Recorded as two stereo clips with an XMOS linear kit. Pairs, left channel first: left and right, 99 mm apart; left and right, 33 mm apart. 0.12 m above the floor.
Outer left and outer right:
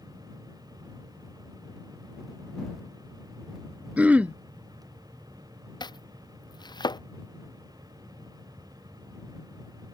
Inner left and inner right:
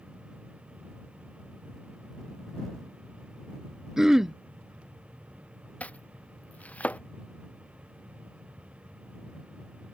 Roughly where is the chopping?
Left.